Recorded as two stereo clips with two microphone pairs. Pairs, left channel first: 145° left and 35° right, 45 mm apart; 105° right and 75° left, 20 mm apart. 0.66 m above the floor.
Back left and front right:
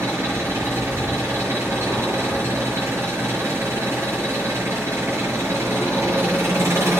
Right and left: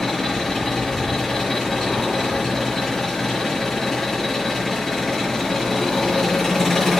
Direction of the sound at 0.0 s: 40° right.